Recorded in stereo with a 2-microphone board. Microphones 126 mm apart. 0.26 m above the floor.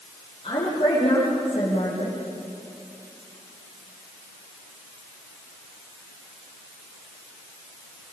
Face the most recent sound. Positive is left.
turn(degrees=45)  # may be behind; listen again after turning